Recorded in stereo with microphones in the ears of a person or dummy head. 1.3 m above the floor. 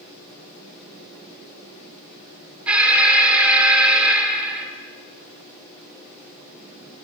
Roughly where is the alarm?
Centre.